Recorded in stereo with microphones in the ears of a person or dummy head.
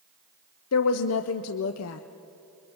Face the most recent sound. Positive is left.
turn(degrees=80)